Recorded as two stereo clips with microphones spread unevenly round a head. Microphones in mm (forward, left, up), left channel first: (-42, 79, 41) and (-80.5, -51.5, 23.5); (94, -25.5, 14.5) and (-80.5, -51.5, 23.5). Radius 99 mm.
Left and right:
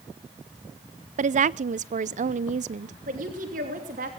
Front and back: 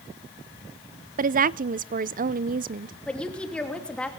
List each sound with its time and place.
1.2 s a woman speaking: 135° right, 0.5 m
3.1 s a woman speaking: 75° right, 3 m